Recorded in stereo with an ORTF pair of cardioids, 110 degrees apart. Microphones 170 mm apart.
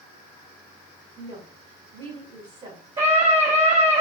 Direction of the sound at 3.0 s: 30° right.